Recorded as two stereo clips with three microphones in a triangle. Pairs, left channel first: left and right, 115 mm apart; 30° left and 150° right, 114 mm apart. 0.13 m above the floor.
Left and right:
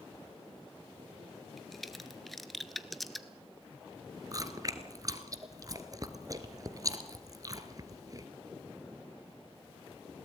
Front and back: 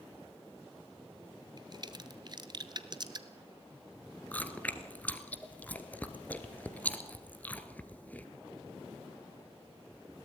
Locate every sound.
1.6 s a crack: straight behind, 1.1 m
4.3 s chewing: 45° right, 1.3 m